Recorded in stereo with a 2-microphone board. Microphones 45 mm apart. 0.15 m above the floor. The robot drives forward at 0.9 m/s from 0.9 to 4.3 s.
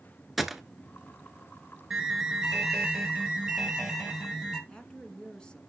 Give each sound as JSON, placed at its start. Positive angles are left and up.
{"t": 0.4, "sound": "a gunshot", "side_deg": -5, "distance_m": 0.7}
{"t": 1.9, "sound": "an alarm", "side_deg": -10, "distance_m": 1.7}
{"t": 4.7, "sound": "a woman speaking", "side_deg": 20, "distance_m": 1.6}